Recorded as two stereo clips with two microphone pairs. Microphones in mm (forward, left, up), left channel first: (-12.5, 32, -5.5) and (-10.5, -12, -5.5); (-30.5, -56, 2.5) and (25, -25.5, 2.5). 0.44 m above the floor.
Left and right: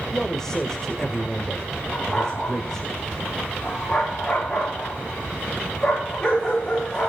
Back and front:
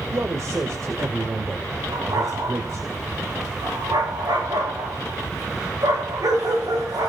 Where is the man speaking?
20° left, 1.9 m.